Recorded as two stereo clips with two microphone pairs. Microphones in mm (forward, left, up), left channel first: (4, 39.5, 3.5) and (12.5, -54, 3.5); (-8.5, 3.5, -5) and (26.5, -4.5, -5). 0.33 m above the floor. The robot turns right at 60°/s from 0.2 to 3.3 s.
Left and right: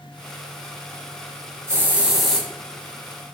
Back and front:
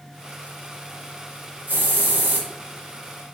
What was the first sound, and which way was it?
A hiss, 30° right.